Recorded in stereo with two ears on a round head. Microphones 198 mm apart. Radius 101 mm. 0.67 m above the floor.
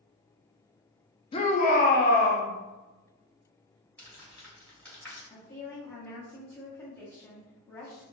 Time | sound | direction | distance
1.3 | a shout | 25° left (ahead or behind) | 0.6 m
4.0 | crumpling | 10° left (ahead or behind) | 2.0 m
5.3 | a woman speaking | 10° left (ahead or behind) | 1.0 m